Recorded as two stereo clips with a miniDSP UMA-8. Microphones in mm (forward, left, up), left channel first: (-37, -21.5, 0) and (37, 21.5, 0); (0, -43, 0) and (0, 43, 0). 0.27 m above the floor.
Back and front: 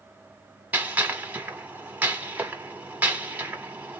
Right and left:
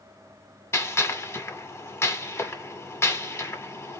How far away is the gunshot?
About 1.2 m.